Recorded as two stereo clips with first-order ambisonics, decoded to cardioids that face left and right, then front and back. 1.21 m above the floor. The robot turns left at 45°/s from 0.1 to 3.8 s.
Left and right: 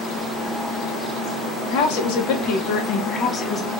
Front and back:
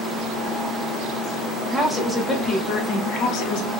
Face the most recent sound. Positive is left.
turn(degrees=5)